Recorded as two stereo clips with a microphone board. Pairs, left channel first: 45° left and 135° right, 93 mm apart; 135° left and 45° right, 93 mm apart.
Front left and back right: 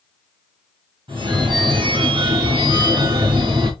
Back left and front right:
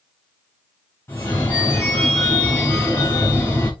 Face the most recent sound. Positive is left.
turn(degrees=-165)